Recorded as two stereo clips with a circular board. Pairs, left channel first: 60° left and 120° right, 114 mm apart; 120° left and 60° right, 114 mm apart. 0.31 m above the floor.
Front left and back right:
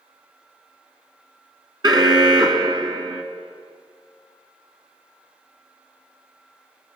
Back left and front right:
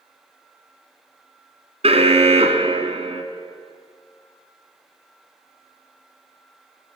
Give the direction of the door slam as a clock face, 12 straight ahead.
No door slam in this recording.